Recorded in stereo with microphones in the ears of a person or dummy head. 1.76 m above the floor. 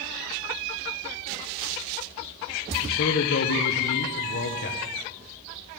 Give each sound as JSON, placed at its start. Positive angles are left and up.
{"t": 2.8, "sound": "a man speaking", "side_deg": 55, "distance_m": 1.2}